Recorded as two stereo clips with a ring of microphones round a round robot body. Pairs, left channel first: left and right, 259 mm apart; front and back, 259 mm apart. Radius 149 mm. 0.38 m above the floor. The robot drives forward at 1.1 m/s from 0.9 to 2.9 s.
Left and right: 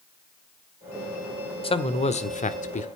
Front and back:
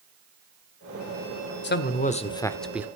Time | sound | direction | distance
1.6 | a man speaking | 30° left | 1.7 m